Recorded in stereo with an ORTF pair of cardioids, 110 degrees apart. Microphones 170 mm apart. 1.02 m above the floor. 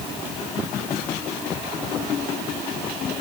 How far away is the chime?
I don't hear a chime.